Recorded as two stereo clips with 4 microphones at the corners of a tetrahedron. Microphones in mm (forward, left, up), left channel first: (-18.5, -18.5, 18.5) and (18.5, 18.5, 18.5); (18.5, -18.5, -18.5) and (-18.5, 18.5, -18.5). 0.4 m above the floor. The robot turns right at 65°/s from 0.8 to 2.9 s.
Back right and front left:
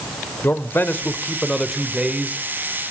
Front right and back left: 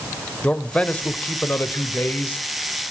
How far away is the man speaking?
About 1.1 m.